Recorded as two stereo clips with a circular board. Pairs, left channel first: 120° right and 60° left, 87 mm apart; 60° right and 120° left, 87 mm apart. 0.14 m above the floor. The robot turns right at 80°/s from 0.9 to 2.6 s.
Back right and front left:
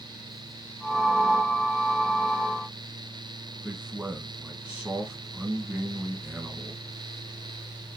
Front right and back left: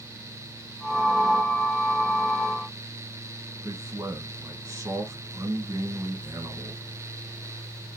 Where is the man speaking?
120° left, 1.5 m.